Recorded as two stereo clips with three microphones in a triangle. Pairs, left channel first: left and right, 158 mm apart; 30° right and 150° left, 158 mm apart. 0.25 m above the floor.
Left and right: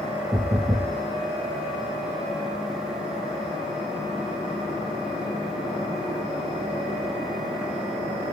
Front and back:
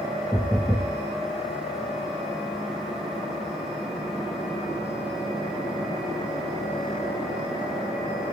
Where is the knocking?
135° right, 0.9 m.